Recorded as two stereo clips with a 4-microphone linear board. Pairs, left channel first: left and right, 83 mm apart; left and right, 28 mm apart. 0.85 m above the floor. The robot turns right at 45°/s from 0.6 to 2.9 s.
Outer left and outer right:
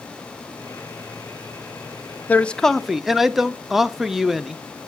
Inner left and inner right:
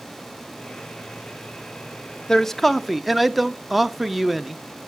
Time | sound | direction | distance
2.3 | a man speaking | 20° left (ahead or behind) | 0.5 m